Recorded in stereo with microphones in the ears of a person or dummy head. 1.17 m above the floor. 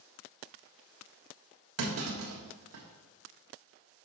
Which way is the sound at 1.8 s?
80° right.